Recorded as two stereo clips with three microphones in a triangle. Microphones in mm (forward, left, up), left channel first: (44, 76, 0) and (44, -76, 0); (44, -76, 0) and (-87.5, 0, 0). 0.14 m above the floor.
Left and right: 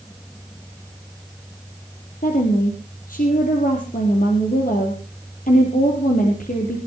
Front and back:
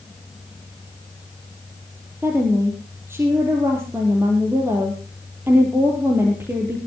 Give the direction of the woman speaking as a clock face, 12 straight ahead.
9 o'clock.